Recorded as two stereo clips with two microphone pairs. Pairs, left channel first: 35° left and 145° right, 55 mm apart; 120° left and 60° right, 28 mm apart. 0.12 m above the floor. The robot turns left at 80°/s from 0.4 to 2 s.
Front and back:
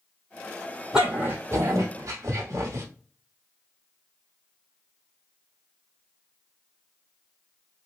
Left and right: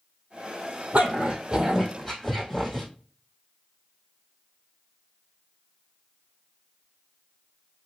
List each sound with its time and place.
0.9 s a dog barking: 70° right, 1.9 m; by 2.9 s 155° right, 1.9 m